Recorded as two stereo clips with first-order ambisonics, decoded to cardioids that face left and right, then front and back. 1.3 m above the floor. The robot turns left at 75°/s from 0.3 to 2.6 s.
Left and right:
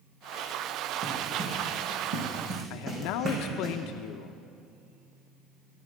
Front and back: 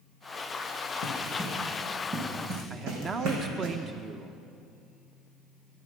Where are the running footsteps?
35° right, 5.5 m; by 3.7 s 150° right, 4 m.